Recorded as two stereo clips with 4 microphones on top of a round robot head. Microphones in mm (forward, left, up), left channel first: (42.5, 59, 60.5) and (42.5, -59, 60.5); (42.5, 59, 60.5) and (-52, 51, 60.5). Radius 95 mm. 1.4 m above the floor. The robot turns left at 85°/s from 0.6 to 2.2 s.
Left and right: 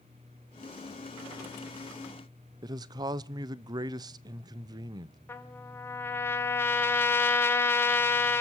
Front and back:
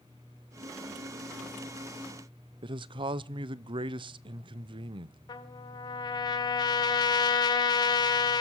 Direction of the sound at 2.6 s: 145° right.